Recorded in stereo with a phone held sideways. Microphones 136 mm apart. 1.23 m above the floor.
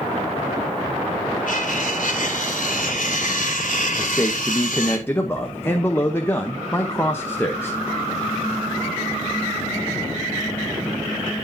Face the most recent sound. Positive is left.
turn(degrees=15)  # may be behind; listen again after turning